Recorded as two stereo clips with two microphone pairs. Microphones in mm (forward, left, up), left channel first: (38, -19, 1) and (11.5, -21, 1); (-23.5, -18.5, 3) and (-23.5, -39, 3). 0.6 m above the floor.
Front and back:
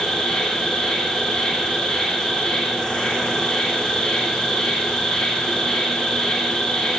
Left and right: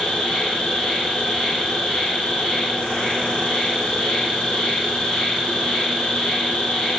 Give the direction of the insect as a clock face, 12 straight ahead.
10 o'clock.